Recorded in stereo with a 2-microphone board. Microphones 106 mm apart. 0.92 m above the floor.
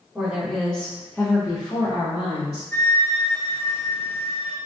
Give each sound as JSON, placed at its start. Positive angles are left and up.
{"t": 0.1, "sound": "a woman speaking", "side_deg": -5, "distance_m": 1.4}
{"t": 2.7, "sound": "a flute", "side_deg": 20, "distance_m": 0.8}